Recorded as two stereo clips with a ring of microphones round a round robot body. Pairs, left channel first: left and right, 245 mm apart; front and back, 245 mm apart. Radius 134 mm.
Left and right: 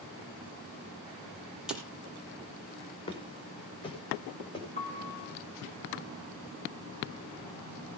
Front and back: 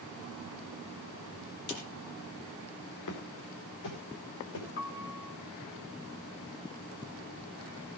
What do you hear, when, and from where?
1.7 s a snare drum: 5° right, 6 m
3.1 s footsteps: 20° left, 5 m
4.8 s a piano: 35° left, 2 m